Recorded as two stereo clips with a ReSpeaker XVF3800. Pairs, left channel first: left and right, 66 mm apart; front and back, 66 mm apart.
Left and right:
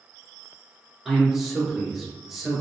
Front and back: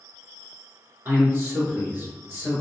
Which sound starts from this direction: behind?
A man speaking, at 1.1 s.